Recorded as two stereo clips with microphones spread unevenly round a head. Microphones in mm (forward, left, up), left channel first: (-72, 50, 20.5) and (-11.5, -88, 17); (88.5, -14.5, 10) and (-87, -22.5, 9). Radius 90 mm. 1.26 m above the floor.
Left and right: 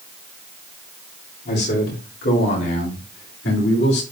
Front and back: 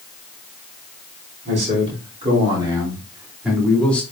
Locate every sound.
1.4 s a man speaking: 130° left, 3.5 m; by 4.0 s 85° left, 2.5 m